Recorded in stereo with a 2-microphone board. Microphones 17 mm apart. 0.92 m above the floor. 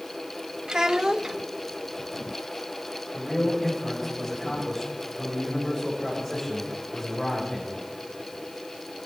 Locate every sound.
0.7 s a child speaking: 40° right (ahead or behind), 0.7 m
3.1 s a man speaking: 5° right (ahead or behind), 5 m